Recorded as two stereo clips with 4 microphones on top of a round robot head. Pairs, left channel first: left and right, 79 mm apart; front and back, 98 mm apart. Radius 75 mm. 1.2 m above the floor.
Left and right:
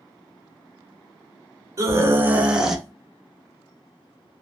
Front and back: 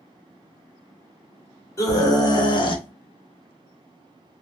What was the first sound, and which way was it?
A scream, 50° right.